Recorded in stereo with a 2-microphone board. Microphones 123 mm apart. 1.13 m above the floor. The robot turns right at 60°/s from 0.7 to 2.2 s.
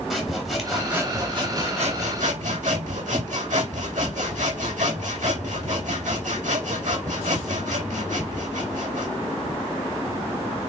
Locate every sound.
0.1 s sawing: straight behind, 3.5 m; by 9.1 s 90° right, 3.5 m